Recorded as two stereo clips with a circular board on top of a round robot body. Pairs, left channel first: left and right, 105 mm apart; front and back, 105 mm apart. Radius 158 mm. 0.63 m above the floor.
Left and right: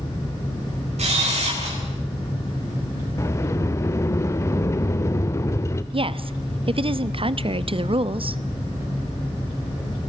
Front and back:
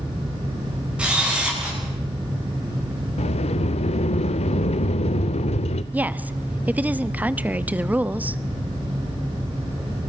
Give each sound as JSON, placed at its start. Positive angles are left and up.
{"t": 1.0, "sound": "a camera shutter", "azimuth_deg": -100, "distance_m": 9.0}
{"t": 3.2, "sound": "a sliding door", "azimuth_deg": 25, "distance_m": 0.6}
{"t": 5.9, "sound": "a woman speaking", "azimuth_deg": -110, "distance_m": 1.2}